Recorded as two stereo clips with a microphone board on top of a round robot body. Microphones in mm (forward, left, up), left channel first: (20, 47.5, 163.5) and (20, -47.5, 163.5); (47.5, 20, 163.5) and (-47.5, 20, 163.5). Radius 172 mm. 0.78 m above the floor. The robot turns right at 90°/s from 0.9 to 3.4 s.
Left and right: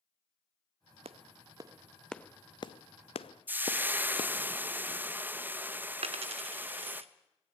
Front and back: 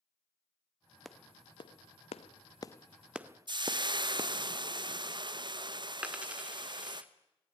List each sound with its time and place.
1.1 s a clap: 90° right, 0.8 m; by 4.3 s 125° left, 0.8 m
3.5 s frying: 155° right, 1.2 m
6.0 s a dropped coin: 100° right, 0.6 m